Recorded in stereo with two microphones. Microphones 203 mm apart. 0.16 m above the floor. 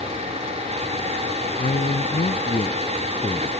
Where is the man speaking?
45° left (ahead or behind); by 3.5 s 15° left (ahead or behind).